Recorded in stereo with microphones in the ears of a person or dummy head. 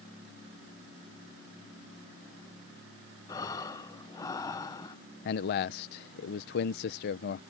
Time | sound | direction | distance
3.3 | breathing | 15° left (ahead or behind) | ?
5.2 | a man speaking | 40° left (ahead or behind) | ?